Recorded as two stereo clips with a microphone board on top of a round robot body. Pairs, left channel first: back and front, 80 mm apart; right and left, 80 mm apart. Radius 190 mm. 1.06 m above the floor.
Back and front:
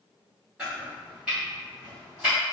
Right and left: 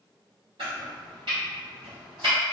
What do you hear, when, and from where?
0.6 s chopping: 80° left, 0.6 m